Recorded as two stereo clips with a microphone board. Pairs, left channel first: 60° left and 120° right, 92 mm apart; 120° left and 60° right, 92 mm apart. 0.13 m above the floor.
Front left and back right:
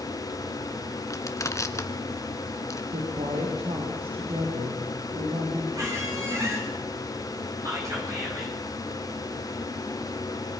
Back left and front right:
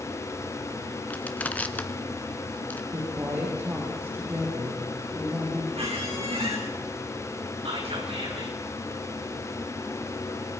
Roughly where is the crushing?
Ahead left.